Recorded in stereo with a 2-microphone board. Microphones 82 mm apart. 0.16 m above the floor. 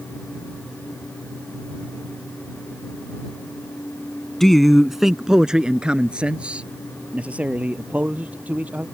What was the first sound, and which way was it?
A man speaking, 5° left (ahead or behind).